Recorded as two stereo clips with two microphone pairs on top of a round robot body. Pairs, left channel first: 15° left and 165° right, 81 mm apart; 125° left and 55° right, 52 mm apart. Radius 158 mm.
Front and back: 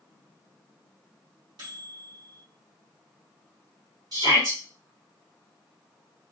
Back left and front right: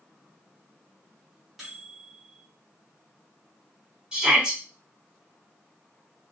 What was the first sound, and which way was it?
A microwave, 145° right.